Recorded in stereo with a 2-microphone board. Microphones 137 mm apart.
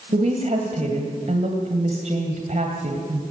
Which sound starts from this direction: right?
A woman speaking, at 0.1 s.